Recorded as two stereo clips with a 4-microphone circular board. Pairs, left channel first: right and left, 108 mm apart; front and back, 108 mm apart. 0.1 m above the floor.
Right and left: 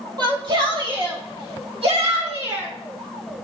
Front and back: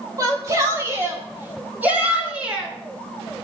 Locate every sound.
0.2 s a shout: 130° left, 3.5 m; by 2.7 s 95° left, 4 m